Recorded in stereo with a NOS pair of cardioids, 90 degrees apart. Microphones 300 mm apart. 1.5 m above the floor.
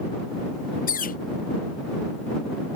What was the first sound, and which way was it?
A bird, 30° left.